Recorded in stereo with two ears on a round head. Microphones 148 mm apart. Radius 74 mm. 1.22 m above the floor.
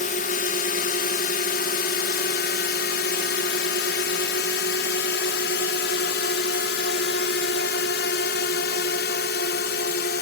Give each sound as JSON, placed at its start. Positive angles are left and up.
{"t": 0.0, "sound": "a drone", "side_deg": 50}